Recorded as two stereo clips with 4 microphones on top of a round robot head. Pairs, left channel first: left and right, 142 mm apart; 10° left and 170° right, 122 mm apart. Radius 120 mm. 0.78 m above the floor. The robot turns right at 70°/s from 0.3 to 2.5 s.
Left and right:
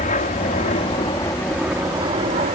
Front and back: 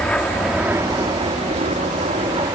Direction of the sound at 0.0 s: 90° left.